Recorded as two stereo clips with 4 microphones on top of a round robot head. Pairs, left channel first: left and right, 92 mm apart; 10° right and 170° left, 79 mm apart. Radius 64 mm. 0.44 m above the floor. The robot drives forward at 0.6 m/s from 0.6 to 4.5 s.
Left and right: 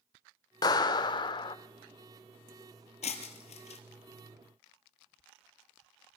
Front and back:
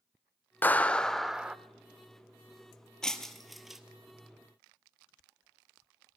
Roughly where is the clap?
Ahead left.